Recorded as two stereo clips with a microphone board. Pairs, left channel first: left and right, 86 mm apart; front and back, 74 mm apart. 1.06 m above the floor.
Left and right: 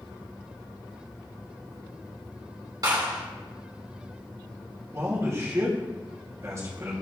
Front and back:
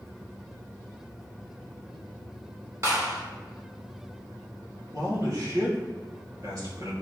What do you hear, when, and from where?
2.8 s a clap: 130° right, 2.5 m
4.9 s a man speaking: 145° right, 2.5 m